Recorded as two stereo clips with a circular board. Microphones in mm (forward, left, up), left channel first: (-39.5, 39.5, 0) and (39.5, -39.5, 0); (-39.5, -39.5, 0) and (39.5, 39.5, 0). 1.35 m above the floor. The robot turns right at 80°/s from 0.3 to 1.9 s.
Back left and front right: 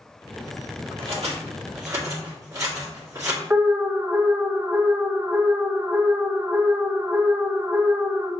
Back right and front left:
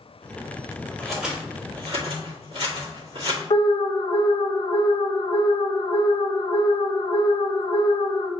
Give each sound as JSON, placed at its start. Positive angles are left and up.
{"t": 1.0, "sound": "scissors", "azimuth_deg": -60, "distance_m": 1.8}
{"t": 3.5, "sound": "an alarm", "azimuth_deg": -115, "distance_m": 0.5}